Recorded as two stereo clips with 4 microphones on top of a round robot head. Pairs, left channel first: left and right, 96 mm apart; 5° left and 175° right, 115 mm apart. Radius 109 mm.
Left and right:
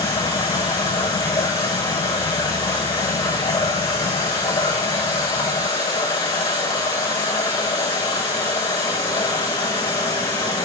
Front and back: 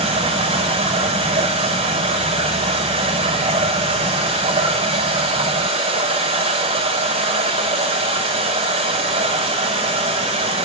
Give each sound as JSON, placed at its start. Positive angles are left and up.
{"t": 0.0, "sound": "running water", "azimuth_deg": 155, "distance_m": 6.0}